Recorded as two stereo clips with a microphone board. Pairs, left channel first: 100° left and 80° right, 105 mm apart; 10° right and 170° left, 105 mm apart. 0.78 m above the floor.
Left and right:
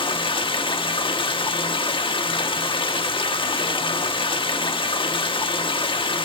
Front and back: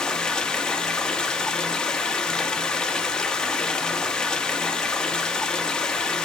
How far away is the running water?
About 1.1 m.